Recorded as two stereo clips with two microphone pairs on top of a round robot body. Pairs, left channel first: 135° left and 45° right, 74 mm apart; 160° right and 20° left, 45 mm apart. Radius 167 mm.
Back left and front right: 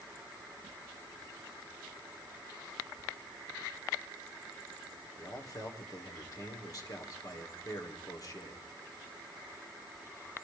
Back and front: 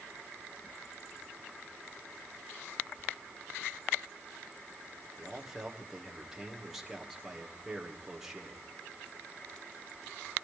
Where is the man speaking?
105° left, 2.5 m.